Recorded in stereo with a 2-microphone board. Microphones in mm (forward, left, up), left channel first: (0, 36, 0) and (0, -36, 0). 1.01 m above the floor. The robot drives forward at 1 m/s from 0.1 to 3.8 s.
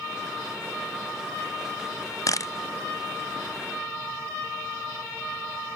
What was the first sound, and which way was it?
A camera shutter, 50° left (ahead or behind).